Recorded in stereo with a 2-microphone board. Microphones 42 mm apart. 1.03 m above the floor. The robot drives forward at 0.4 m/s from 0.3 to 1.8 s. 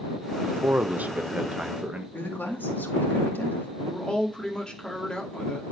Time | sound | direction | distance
0.4 | a man speaking | 45° right (ahead or behind) | 0.5 m
2.1 | a woman speaking | 55° left (ahead or behind) | 2 m
3.8 | a man speaking | 20° left (ahead or behind) | 2 m